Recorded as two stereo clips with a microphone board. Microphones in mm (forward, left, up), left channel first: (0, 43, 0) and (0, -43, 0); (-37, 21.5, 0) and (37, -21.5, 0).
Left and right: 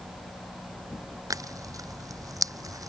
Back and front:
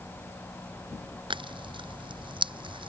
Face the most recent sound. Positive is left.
turn(degrees=-45)